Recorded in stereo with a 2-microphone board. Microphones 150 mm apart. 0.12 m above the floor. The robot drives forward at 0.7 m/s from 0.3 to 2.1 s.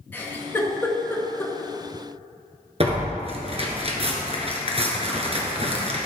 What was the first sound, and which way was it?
A giggle, 15° left (ahead or behind).